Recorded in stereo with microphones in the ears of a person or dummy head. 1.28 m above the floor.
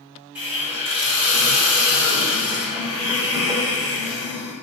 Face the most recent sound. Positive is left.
turn(degrees=-20)  # may be behind; listen again after turning